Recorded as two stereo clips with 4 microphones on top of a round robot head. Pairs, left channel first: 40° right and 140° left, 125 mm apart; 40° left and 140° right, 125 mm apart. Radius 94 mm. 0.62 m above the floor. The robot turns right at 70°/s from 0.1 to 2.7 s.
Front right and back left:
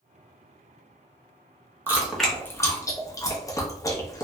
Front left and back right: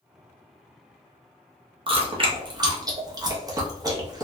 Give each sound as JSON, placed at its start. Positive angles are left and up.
{"t": 1.9, "sound": "chewing", "azimuth_deg": -155, "distance_m": 0.9}